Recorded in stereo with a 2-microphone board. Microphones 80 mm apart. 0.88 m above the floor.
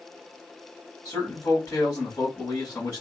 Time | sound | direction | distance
1.1 | a man speaking | 40° left (ahead or behind) | 2.5 m